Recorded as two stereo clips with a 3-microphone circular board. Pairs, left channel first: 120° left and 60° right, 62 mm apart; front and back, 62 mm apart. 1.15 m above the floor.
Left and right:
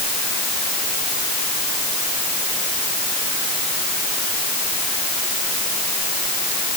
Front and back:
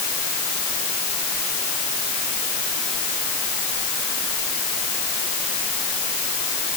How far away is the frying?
I don't hear frying.